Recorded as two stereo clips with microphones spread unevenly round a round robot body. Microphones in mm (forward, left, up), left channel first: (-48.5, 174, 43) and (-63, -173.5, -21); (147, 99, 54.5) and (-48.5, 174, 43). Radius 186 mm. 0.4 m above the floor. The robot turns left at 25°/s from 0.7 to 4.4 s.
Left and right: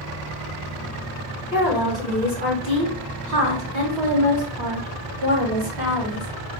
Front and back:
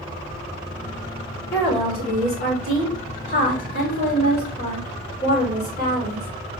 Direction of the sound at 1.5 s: 10° right.